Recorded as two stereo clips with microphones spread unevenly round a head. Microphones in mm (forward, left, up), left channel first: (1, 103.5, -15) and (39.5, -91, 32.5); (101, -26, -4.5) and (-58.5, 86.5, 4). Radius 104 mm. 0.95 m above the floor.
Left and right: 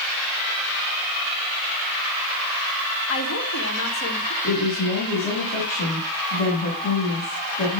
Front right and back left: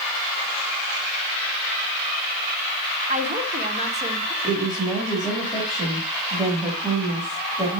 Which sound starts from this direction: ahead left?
A woman speaking, at 4.4 s.